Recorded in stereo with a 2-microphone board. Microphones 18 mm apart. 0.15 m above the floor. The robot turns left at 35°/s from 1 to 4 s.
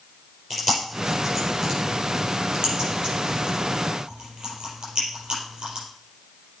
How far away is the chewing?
About 4.5 m.